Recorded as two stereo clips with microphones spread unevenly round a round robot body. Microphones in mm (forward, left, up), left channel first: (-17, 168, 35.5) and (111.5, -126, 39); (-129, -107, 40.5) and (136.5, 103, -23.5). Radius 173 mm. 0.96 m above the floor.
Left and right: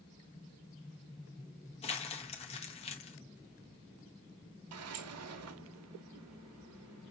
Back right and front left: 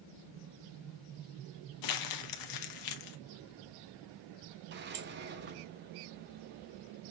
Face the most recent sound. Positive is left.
turn(degrees=-25)